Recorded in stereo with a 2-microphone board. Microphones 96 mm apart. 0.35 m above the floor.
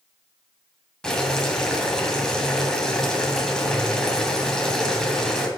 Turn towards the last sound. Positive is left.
turn(degrees=5)  # may be behind; listen again after turning